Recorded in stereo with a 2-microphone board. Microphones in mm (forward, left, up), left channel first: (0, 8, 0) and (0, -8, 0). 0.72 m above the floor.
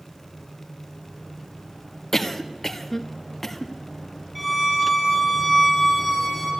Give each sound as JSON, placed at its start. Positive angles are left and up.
{"t": 2.1, "sound": "a cough", "side_deg": 20, "distance_m": 1.2}
{"t": 4.3, "sound": "a violin", "side_deg": -10, "distance_m": 4.5}